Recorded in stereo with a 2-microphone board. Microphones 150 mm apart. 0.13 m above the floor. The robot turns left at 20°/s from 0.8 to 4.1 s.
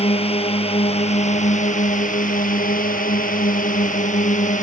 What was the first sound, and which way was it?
A drone, 135° left.